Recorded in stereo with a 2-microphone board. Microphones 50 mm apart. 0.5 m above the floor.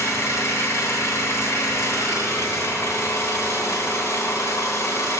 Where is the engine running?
70° left (ahead or behind), 3 m.